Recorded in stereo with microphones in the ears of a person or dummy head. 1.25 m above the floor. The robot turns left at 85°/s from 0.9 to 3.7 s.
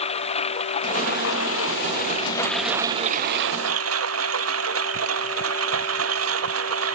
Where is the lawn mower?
145° left; by 7.0 s 95° right.